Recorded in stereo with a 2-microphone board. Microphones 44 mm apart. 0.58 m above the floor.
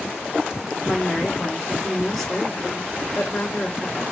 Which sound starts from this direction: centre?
A woman speaking, at 0.8 s.